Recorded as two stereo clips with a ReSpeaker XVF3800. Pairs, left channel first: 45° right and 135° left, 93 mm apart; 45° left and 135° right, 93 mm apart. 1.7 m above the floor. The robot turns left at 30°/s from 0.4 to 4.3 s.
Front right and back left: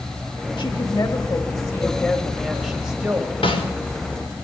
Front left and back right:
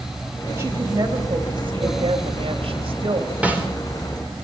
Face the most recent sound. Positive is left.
turn(degrees=-85)